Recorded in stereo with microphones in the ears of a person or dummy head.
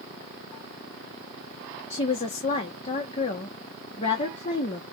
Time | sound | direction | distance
1.9 | a woman speaking | 40° left (ahead or behind) | 1.0 m